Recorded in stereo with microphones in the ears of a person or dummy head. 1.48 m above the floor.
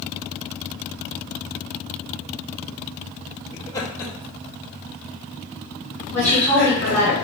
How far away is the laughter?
About 1.5 m.